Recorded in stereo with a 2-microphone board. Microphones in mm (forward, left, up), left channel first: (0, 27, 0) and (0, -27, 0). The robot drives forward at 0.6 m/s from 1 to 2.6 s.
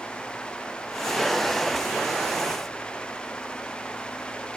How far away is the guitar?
No guitar in this recording.